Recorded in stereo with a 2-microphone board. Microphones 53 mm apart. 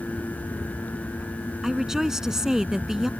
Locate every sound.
1.6 s a woman speaking: 10° right (ahead or behind)